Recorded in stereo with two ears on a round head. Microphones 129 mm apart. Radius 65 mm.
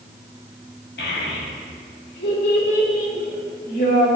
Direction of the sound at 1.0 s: 75° left (ahead or behind).